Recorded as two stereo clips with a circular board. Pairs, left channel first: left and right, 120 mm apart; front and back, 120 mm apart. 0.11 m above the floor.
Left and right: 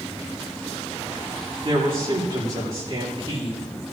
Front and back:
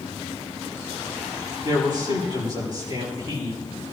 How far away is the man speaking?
About 7 m.